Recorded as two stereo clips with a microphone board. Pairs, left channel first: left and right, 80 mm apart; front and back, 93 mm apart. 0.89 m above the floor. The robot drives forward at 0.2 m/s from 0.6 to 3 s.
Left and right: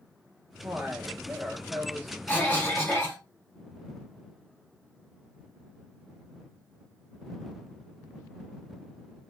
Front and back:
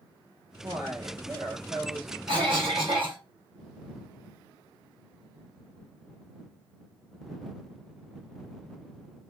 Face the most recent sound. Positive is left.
turn(degrees=160)